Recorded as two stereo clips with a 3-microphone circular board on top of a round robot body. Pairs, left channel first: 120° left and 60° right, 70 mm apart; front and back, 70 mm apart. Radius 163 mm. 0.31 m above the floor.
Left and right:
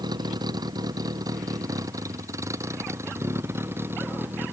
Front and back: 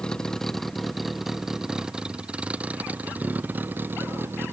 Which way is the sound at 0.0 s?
80° right.